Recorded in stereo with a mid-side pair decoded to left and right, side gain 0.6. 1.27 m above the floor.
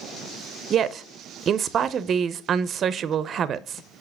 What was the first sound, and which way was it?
A woman speaking, 40° right.